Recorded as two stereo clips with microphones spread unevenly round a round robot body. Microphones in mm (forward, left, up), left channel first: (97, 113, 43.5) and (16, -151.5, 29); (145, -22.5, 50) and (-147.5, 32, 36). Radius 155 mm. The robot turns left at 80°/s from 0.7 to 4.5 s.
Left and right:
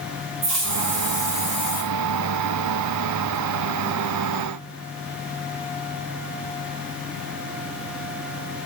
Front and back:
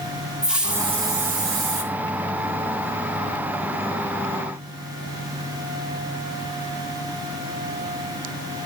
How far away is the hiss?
About 1.6 m.